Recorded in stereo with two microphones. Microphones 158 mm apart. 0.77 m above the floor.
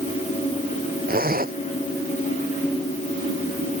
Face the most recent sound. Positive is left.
turn(degrees=-65)  # may be behind; listen again after turning